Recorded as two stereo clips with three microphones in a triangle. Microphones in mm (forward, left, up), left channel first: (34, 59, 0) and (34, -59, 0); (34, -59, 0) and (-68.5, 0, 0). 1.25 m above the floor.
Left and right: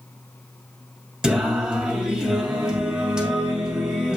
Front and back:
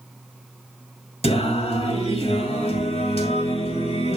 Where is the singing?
5° right, 2.5 m.